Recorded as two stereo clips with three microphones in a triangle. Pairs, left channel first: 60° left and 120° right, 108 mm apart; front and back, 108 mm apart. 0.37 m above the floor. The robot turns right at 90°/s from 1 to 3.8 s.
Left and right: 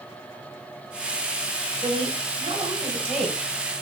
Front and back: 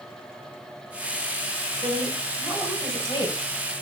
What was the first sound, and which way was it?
A woman speaking, 155° right.